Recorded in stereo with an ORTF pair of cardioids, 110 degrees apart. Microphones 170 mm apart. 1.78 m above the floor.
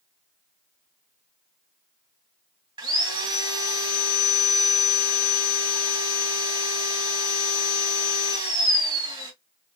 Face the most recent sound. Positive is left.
turn(degrees=-30)